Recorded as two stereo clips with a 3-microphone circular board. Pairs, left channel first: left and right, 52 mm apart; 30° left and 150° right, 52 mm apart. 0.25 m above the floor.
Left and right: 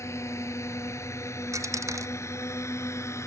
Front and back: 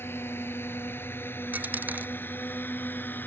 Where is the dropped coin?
95° right.